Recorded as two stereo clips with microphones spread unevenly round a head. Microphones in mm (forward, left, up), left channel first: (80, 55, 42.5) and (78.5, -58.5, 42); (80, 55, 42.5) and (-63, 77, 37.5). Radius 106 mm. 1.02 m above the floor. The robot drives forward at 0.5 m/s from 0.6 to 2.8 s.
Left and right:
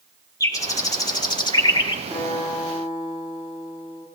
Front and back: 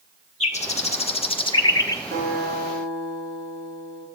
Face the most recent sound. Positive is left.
turn(degrees=-175)